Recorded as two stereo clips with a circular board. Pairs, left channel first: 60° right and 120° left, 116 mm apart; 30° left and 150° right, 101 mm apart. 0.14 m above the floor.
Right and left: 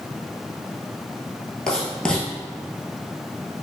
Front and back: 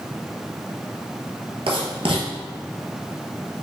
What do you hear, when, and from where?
1.7 s writing: 145° right, 1.0 m